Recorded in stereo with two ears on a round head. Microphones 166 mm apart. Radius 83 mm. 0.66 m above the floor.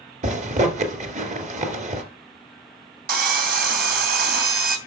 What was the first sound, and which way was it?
A zipper, 40° right (ahead or behind).